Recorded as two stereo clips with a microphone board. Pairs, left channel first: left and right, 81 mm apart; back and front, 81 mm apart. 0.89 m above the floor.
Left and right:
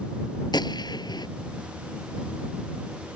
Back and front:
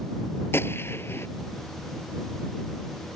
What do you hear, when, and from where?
0.5 s a gunshot: 120° left